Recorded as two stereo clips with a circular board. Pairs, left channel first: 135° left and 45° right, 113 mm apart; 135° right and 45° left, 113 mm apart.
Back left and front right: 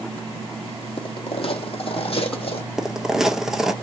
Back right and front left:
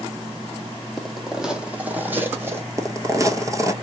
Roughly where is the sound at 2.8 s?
Ahead left.